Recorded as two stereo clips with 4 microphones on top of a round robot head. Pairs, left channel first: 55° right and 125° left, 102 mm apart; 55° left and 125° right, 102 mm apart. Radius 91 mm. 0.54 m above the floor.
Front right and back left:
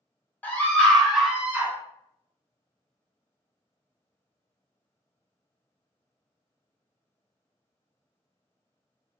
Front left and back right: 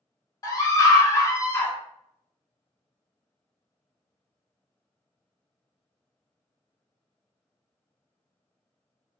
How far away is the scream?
About 1.2 m.